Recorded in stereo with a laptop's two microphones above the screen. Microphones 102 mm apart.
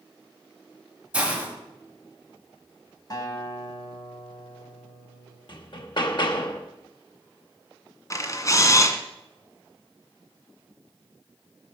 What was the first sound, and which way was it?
A hiss, 10° right (ahead or behind).